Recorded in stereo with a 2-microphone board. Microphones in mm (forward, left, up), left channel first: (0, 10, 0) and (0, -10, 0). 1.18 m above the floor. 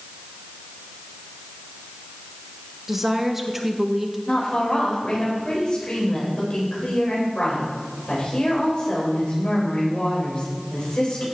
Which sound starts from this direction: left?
A woman speaking, at 4.3 s.